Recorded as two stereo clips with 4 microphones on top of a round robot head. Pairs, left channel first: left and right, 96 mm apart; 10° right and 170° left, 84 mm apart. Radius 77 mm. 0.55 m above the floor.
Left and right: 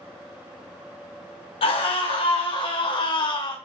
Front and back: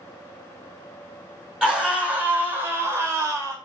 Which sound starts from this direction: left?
A scream, at 1.6 s.